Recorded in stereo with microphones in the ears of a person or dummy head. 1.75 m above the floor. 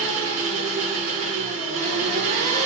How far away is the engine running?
About 3.5 m.